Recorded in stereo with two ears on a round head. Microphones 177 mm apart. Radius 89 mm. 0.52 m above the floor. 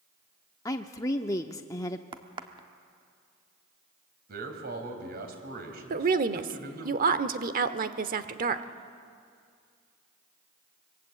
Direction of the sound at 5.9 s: 45° right (ahead or behind).